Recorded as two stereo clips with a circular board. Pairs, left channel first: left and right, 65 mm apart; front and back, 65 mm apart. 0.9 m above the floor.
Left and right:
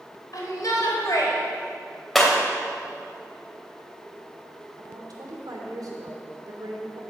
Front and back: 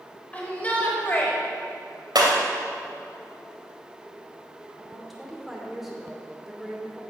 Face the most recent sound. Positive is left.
turn(degrees=-90)